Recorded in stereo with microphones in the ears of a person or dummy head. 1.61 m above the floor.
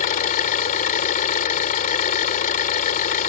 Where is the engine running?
40° left (ahead or behind).